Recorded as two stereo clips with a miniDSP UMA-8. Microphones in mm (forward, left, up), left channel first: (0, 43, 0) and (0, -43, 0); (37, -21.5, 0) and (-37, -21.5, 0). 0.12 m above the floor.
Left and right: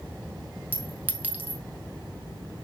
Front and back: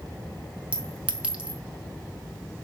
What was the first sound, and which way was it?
A clink, 130° right.